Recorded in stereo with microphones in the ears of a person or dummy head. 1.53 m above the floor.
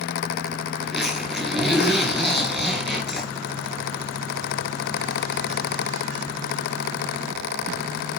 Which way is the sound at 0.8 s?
5° right (ahead or behind).